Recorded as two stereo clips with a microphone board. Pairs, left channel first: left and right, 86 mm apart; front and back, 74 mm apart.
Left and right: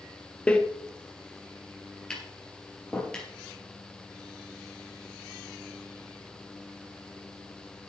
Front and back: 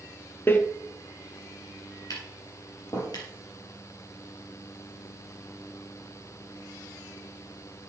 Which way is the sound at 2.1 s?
15° left.